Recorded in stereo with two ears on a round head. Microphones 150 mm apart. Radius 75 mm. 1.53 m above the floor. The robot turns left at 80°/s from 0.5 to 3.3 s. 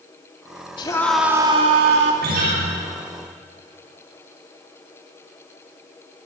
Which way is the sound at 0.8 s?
30° left.